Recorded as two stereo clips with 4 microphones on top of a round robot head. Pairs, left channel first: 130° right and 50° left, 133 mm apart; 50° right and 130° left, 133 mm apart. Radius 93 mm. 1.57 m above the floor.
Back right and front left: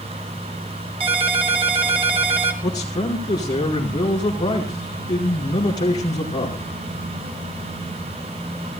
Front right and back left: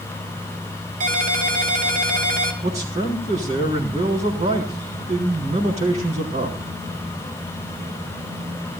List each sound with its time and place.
1.0 s a ringtone: 100° left, 1.9 m
2.6 s a man speaking: 170° left, 4.5 m